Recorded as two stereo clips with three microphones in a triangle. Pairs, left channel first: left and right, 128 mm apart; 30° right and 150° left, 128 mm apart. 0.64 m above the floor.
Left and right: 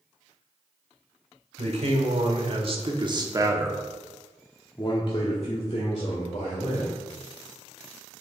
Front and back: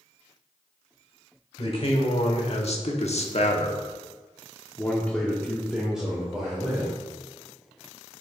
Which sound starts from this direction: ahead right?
A man speaking, at 1.6 s.